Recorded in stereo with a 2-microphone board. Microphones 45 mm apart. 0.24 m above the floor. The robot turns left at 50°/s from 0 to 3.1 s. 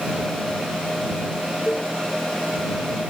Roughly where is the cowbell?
Left.